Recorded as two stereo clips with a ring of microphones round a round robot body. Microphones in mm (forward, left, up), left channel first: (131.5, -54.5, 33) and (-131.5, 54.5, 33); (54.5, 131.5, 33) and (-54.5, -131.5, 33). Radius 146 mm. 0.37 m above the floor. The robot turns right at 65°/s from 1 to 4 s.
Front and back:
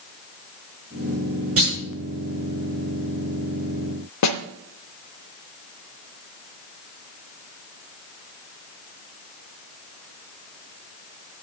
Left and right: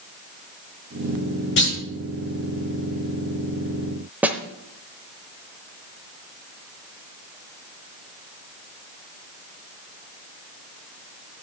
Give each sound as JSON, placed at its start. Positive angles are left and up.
{"t": 1.6, "sound": "a clunk", "azimuth_deg": 115, "distance_m": 5.5}
{"t": 4.2, "sound": "a snare drum", "azimuth_deg": -30, "distance_m": 0.8}